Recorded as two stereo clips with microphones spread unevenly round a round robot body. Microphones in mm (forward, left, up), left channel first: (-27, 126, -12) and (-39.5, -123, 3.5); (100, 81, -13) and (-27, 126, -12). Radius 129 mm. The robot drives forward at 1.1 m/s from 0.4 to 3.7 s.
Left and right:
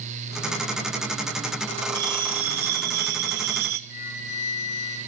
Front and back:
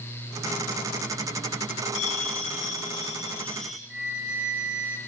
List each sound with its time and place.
1.9 s a bell: 45° right, 2 m; by 3.8 s 110° right, 1.7 m
3.9 s a flute: 80° left, 6.5 m